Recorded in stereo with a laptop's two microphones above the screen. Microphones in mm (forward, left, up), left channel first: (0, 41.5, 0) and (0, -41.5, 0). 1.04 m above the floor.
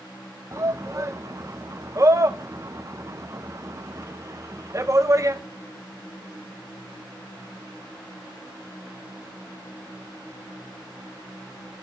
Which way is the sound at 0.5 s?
40° right (ahead or behind).